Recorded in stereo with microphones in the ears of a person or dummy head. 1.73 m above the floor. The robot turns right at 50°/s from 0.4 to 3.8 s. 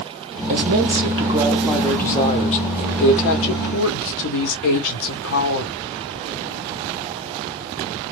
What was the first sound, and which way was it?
A woman speaking, 60° right.